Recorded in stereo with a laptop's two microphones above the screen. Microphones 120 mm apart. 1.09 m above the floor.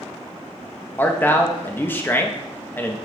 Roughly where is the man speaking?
Centre.